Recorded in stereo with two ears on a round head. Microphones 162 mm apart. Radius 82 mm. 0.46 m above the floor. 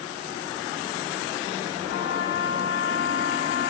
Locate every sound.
1.9 s a trumpet: 75° left (ahead or behind), 2.5 m